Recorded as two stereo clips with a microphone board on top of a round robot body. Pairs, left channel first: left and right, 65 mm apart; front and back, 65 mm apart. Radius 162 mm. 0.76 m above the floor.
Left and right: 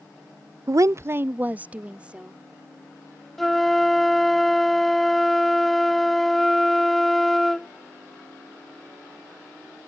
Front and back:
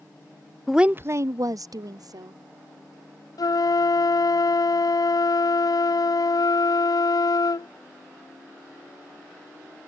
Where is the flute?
Straight ahead.